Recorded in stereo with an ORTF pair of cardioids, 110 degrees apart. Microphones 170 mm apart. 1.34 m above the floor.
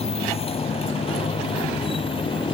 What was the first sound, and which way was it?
A motorcycle, 35° left.